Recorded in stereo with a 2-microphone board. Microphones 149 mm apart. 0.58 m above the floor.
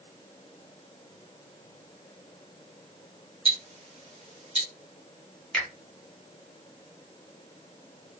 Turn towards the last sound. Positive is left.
turn(degrees=5)  # may be behind; listen again after turning